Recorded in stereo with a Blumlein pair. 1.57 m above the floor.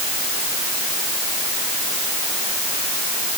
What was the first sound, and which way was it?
Only background noise.